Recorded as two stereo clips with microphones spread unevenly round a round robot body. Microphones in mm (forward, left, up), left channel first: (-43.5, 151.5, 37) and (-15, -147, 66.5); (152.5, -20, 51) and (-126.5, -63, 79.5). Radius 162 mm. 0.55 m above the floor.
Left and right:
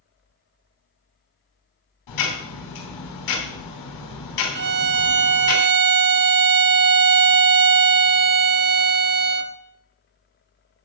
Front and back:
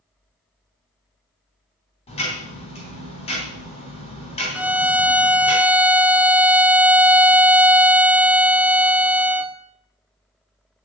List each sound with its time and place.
2.1 s ticking: 80° left, 3 m
4.5 s a violin: 80° right, 0.7 m